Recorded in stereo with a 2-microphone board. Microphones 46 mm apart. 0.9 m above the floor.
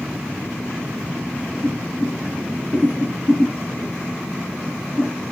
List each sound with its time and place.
1.6 s boiling: 10° right (ahead or behind), 1.2 m